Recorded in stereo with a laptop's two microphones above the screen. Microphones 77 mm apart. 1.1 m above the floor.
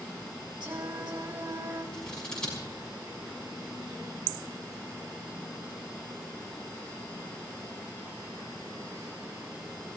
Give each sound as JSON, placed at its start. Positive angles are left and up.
{"t": 0.6, "sound": "singing", "side_deg": -75, "distance_m": 7.0}
{"t": 1.9, "sound": "scissors", "side_deg": 10, "distance_m": 6.0}